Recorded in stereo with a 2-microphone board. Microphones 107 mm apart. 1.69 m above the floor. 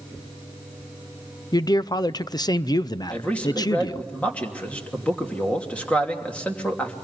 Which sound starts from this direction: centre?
A man speaking, at 3.1 s.